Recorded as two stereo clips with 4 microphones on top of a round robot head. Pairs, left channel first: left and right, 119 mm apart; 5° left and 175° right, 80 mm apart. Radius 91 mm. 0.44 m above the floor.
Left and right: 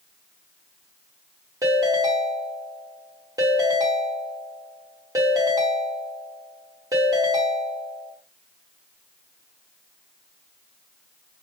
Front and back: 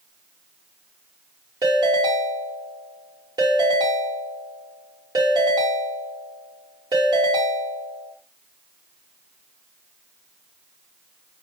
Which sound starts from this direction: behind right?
A ringtone, at 1.6 s.